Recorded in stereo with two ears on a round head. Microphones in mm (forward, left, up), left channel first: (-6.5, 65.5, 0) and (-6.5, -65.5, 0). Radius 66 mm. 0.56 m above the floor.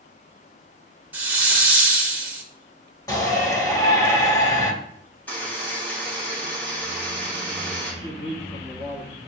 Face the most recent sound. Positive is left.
turn(degrees=25)  # may be behind; listen again after turning